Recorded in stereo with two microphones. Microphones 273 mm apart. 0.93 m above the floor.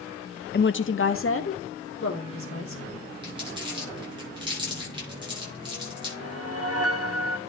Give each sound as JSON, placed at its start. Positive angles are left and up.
{"t": 0.5, "sound": "a woman speaking", "side_deg": 40, "distance_m": 0.5}
{"t": 3.2, "sound": "crumpling", "side_deg": -20, "distance_m": 7.5}
{"t": 6.2, "sound": "a whoosh", "side_deg": -60, "distance_m": 1.2}